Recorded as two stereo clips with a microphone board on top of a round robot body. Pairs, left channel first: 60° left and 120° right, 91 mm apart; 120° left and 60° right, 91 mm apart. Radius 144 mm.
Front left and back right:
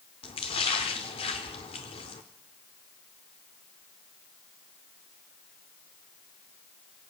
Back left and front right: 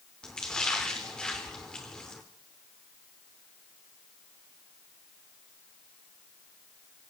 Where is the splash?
40° left, 0.7 m.